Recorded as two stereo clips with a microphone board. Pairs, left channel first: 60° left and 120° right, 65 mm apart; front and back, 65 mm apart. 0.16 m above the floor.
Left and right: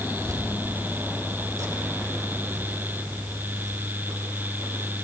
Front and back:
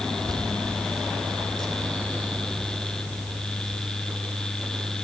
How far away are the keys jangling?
About 4.5 m.